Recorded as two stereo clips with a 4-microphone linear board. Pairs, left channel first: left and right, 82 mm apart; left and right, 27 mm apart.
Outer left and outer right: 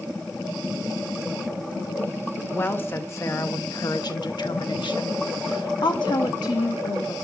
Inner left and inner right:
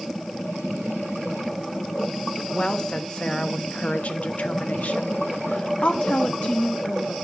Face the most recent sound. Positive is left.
turn(degrees=50)  # may be behind; listen again after turning